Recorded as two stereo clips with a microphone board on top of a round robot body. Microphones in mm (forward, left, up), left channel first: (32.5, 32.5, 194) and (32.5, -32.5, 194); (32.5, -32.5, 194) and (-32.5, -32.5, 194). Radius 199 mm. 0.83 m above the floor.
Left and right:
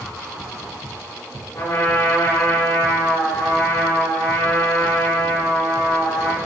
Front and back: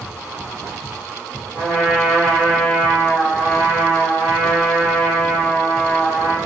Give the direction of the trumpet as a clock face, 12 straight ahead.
9 o'clock.